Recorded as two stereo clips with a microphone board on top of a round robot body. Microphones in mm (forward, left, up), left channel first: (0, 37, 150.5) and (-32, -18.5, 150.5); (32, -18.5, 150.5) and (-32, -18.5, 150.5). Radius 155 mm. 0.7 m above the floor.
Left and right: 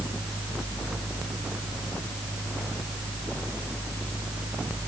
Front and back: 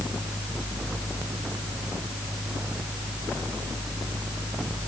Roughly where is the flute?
I don't hear a flute.